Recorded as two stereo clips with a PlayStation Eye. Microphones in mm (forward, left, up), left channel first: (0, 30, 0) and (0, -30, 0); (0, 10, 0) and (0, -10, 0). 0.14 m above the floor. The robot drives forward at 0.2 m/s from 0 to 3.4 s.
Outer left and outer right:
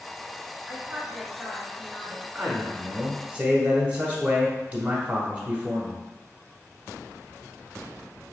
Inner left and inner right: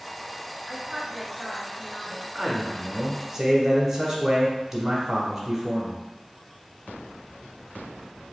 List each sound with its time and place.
0.7 s a woman speaking: 15° right (ahead or behind), 1.4 m
2.4 s a man speaking: 20° right (ahead or behind), 1.1 m